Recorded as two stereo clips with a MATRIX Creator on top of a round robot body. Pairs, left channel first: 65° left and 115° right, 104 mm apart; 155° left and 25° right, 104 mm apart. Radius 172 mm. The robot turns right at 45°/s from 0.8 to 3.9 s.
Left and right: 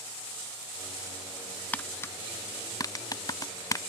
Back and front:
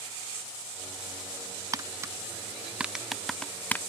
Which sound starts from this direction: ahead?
Tapping, at 1.7 s.